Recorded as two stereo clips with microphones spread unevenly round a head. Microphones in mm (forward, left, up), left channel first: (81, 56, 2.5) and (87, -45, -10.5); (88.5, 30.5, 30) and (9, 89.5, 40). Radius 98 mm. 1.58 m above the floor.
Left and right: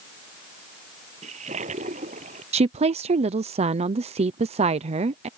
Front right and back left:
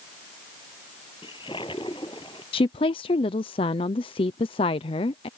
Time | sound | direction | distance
1.2 | a toilet flushing | 105° right | ?
2.5 | a woman speaking | 80° right | ?